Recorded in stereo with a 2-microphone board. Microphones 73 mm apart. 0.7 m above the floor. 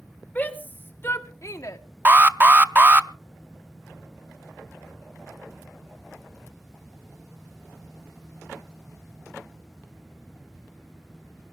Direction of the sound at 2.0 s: 30° right (ahead or behind).